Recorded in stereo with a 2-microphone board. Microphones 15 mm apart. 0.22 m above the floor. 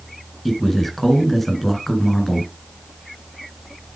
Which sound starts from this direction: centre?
A man speaking, at 0.5 s.